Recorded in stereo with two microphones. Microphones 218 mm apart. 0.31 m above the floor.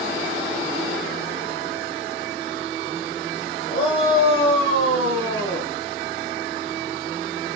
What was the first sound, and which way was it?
A shout, 20° left (ahead or behind).